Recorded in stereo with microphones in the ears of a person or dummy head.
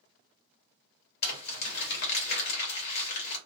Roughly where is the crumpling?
Left.